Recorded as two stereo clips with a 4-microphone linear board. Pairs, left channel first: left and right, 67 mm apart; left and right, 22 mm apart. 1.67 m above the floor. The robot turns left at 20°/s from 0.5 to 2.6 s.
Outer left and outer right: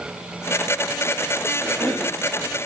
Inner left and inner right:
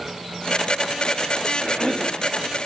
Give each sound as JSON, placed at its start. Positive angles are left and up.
{"t": 1.6, "sound": "a cough", "side_deg": 20, "distance_m": 2.5}